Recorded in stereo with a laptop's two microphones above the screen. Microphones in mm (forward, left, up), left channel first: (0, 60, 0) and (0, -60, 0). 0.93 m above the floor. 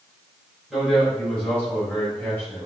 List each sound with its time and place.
0.7 s a man speaking: 5° left (ahead or behind), 3.5 m; by 2.7 s 20° left (ahead or behind), 4.5 m